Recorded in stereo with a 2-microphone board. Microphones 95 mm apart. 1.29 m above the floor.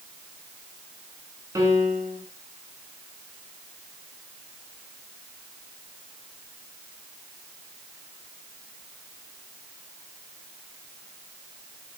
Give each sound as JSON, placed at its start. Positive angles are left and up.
{"t": 1.6, "sound": "a piano", "side_deg": -30, "distance_m": 5.5}